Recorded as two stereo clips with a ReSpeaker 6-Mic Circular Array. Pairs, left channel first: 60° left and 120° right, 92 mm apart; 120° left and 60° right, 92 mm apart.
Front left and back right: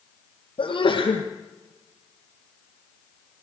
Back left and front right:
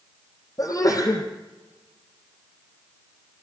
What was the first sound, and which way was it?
A sneeze, 70° left.